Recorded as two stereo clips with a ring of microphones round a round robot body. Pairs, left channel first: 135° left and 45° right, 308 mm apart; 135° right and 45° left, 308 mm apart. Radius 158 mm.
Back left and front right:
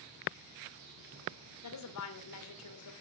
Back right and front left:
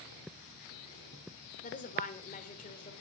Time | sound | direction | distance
1.6 | a woman speaking | 160° left | 2.5 m